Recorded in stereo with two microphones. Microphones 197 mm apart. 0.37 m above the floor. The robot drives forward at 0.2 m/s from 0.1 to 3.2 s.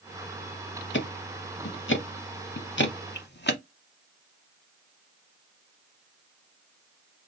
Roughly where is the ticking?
Left.